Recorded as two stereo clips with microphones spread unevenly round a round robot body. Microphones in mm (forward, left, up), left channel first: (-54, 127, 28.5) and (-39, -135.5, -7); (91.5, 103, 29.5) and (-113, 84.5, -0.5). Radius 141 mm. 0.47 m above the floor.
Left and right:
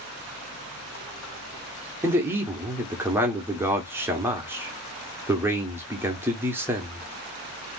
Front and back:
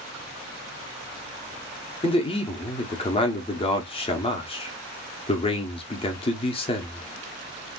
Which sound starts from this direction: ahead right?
A man speaking, at 2.0 s.